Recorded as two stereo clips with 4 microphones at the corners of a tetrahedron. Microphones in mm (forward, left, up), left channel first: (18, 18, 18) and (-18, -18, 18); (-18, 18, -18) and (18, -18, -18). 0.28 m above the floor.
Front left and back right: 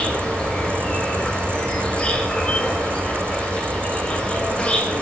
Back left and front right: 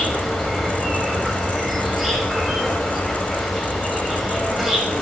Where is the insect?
55° left, 1.5 m.